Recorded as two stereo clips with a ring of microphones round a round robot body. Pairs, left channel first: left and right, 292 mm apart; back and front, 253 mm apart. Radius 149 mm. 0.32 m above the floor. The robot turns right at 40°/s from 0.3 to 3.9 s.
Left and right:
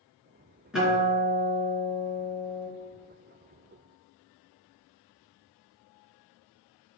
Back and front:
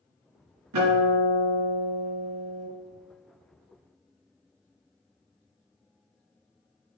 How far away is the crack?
I don't hear a crack.